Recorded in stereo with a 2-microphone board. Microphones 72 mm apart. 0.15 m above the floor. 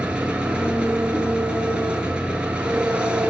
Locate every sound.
0.0 s an engine running: 15° right (ahead or behind), 0.8 m